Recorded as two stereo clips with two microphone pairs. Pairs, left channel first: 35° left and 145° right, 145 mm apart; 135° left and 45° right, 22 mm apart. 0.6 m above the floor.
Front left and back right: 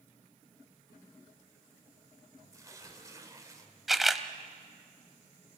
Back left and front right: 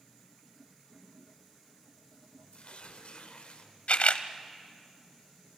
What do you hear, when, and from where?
2.5 s tearing paper: 150° left, 2 m
3.9 s a camera shutter: 125° left, 0.9 m